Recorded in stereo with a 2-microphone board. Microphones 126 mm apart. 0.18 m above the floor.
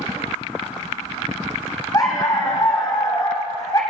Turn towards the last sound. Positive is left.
turn(degrees=30)  # may be behind; listen again after turning